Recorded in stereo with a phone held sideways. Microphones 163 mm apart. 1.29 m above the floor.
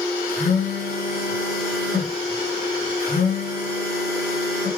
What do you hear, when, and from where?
0.3 s a phone buzzing: 65° left (ahead or behind), 9.5 m